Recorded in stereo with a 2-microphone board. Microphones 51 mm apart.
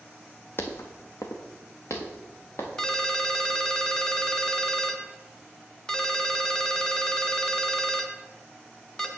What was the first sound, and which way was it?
Footsteps, 45° left (ahead or behind).